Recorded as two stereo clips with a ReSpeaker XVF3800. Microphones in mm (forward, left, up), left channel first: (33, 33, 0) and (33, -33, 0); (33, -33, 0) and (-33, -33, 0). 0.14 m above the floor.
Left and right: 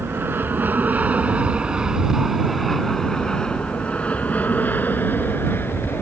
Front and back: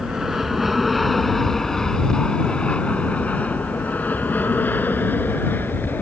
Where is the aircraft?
100° right; by 6.0 s 50° left.